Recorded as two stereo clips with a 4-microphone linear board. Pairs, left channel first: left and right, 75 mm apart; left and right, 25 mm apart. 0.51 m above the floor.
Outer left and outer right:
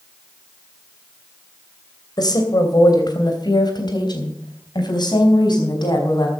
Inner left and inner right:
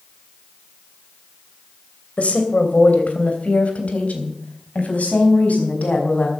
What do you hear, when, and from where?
2.2 s a woman speaking: 65° left (ahead or behind), 2.5 m; by 6.3 s 70° left (ahead or behind), 4.5 m